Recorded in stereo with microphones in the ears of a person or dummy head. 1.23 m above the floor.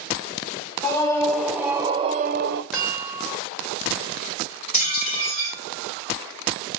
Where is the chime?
5° right (ahead or behind), 2 m.